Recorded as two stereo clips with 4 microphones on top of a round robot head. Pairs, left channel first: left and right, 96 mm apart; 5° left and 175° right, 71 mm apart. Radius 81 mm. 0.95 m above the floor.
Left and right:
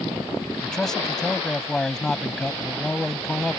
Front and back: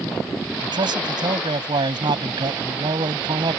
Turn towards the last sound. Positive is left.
turn(degrees=175)